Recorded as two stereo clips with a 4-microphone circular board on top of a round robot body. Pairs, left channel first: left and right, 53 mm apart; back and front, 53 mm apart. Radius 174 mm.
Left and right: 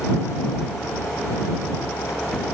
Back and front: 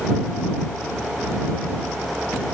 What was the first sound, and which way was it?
Only background noise.